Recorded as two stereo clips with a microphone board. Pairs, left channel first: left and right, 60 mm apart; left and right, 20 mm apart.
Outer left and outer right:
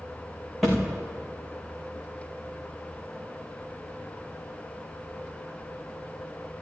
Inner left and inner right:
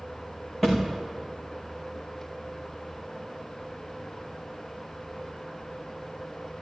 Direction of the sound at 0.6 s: Centre (ahead or behind).